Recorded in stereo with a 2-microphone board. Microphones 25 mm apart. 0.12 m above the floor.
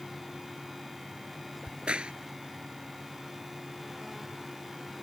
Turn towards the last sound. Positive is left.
turn(degrees=-50)  # may be behind; listen again after turning